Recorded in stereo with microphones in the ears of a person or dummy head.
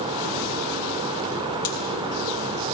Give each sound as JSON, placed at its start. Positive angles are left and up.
{"t": 1.6, "sound": "a pop", "side_deg": 25, "distance_m": 1.6}